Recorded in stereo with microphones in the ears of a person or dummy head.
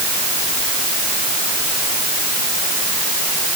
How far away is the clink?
I don't hear a clink.